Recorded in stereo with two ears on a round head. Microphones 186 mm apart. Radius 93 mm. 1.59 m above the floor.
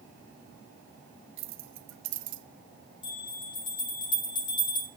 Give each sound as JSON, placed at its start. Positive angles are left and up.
{"t": 1.4, "sound": "keys jangling", "side_deg": -65, "distance_m": 1.8}
{"t": 3.0, "sound": "a bell", "side_deg": 25, "distance_m": 4.5}